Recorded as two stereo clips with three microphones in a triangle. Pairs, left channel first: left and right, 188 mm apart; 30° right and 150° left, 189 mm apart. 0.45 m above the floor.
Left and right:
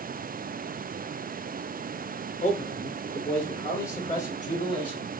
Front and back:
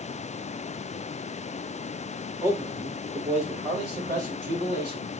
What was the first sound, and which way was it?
A man speaking, 75° left.